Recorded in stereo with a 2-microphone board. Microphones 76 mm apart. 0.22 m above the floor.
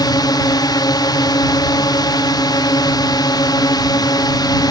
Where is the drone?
60° left (ahead or behind).